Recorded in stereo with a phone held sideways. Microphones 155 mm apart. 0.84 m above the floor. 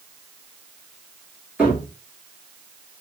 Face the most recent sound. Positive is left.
turn(degrees=-10)  # may be behind; listen again after turning